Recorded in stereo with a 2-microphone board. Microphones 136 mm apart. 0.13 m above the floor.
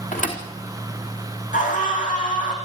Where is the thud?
70° left (ahead or behind), 3.5 m.